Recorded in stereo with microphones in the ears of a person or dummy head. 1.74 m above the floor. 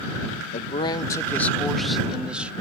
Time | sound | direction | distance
0.5 | a man speaking | 40° left (ahead or behind) | ?